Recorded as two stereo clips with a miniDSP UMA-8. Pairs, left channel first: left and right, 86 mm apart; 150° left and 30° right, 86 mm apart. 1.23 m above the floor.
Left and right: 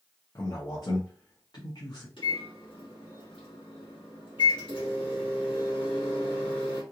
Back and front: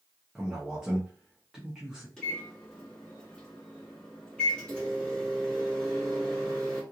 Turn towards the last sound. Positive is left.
turn(degrees=70)